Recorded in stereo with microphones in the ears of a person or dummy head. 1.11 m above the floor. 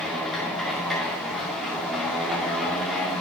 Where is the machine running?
Centre (ahead or behind), 2 m.